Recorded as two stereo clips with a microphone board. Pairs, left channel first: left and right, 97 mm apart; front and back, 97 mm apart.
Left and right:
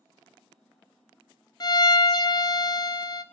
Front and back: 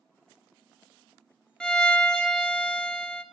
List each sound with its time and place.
1.6 s a violin: 80° left, 0.8 m